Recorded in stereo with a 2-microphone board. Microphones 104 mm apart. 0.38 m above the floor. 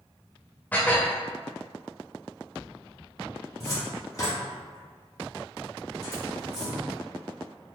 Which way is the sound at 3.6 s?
35° left (ahead or behind).